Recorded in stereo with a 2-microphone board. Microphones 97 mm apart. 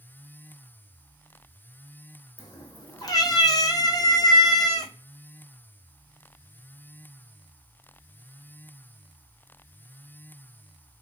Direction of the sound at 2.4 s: 40° left (ahead or behind).